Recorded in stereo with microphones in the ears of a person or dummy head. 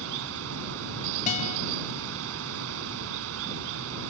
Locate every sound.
0.0 s running water: 80° right
1.3 s a guitar: 40° left (ahead or behind)